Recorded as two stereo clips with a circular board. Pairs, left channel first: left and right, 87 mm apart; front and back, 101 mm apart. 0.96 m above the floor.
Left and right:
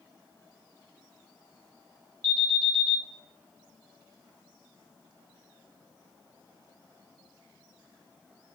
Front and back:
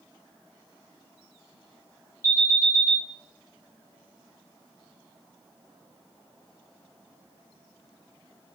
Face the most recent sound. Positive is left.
turn(degrees=-125)